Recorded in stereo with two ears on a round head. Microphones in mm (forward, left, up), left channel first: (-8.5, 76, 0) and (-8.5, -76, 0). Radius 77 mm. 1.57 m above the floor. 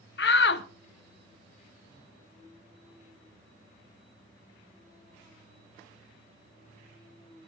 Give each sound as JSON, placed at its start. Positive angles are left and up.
{"t": 0.2, "sound": "a shout", "side_deg": 65, "distance_m": 1.3}